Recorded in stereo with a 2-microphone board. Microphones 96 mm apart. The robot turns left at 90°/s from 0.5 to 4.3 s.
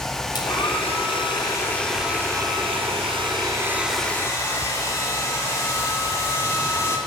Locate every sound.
0.3 s a hair dryer: 130° left, 3 m; by 7.0 s 150° left, 3 m